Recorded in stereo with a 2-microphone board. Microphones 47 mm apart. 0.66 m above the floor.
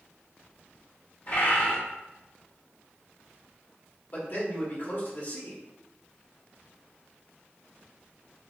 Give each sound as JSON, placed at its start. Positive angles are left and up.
{"t": 1.3, "sound": "a bird", "side_deg": 40, "distance_m": 1.5}
{"t": 4.1, "sound": "a man speaking", "side_deg": 45, "distance_m": 1.3}